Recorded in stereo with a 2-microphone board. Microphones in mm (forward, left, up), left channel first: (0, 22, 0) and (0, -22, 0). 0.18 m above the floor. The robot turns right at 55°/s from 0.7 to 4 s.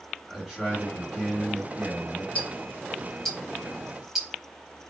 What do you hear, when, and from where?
0.3 s a man speaking: 175° right, 2.5 m; by 2.2 s 90° right, 2.5 m
2.4 s ticking: 25° left (ahead or behind), 1.2 m; by 4.3 s 10° right (ahead or behind), 1.2 m